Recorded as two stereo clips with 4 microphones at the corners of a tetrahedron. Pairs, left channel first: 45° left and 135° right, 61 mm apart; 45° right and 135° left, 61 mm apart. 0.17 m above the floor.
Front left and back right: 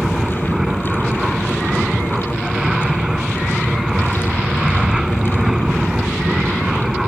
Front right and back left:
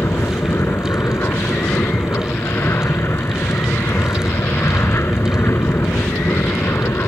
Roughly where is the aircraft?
Ahead right.